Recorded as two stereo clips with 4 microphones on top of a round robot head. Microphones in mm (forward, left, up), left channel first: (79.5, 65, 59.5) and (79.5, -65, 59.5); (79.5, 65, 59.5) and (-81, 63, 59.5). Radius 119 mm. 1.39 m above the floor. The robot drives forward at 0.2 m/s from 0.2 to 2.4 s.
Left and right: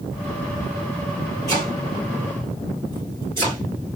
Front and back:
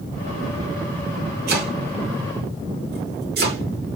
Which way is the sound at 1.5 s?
165° left.